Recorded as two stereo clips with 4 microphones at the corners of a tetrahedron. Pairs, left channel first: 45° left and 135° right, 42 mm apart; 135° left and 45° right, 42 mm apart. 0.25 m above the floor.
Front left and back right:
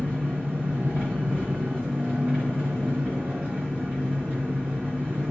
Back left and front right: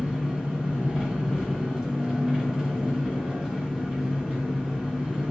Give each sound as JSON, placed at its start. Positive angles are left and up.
{"t": 0.0, "sound": "an engine running", "azimuth_deg": -110, "distance_m": 1.8}